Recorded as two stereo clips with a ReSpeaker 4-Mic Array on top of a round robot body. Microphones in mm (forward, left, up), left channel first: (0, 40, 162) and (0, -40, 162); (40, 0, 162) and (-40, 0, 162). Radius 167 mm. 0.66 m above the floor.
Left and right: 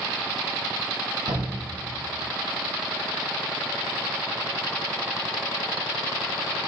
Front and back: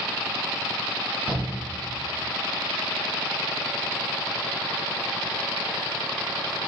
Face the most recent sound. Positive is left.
turn(degrees=-105)